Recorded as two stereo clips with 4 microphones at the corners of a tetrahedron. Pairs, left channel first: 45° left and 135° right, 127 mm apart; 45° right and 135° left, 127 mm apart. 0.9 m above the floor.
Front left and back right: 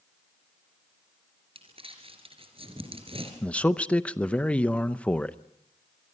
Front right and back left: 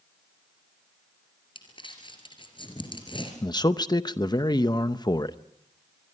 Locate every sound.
1.6 s crumpling: 95° right, 3.5 m
3.4 s a man speaking: 30° right, 0.7 m